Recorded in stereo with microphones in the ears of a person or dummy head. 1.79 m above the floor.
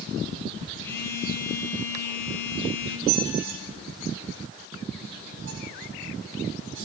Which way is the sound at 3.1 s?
70° right (ahead or behind).